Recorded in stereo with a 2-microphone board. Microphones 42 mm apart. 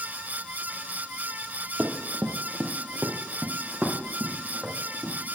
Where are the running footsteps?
35° right (ahead or behind), 1.9 m; by 5.1 s centre (ahead or behind), 4.5 m.